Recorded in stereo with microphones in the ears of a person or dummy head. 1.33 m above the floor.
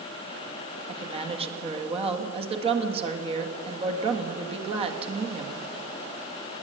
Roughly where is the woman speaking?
Right.